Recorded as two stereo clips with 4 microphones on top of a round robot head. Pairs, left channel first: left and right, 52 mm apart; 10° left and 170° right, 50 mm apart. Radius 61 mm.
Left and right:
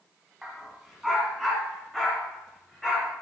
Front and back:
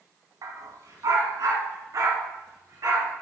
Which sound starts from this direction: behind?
A dog barking, at 0.4 s.